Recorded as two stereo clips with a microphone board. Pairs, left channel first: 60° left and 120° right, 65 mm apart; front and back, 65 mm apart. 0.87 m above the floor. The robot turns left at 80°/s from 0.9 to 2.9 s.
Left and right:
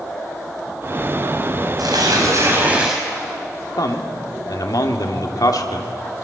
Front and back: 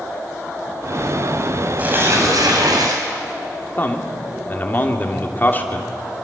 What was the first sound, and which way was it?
Tearing paper, 110° right.